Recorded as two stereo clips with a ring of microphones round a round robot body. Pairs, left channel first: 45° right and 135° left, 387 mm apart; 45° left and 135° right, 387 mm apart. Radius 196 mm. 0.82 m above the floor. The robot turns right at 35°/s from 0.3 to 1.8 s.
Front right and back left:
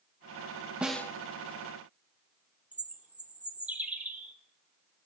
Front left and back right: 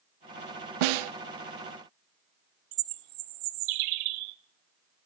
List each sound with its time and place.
0.8 s a snare drum: 140° right, 0.6 m; by 1.1 s 130° right, 0.6 m
2.7 s a bird: 140° right, 0.7 m